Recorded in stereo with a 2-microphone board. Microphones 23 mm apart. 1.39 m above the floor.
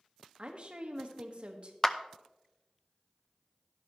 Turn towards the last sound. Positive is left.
turn(degrees=15)  # may be behind; listen again after turning